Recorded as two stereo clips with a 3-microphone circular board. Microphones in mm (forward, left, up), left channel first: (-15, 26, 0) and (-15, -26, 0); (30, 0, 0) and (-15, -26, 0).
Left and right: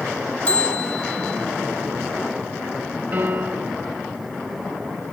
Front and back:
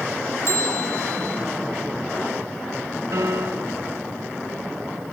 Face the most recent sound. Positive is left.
turn(degrees=-140)